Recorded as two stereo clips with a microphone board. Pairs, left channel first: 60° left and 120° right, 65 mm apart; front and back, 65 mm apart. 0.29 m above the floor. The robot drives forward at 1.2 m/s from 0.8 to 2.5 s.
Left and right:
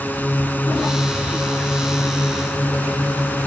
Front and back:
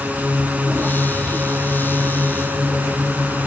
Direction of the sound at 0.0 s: 120° left.